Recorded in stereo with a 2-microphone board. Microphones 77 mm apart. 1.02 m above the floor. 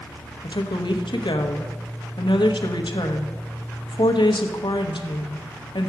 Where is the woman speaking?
80° left, 0.9 m.